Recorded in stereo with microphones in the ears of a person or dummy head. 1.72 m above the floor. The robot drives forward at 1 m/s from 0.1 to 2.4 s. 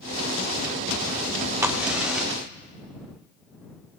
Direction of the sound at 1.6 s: 10° right (ahead or behind).